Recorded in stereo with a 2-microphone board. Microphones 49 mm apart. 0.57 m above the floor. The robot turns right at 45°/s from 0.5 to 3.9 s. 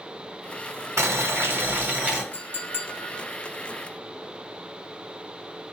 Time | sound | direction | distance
1.0 | boiling | 75° right | 0.8 m
2.3 | a clink | 65° left | 0.9 m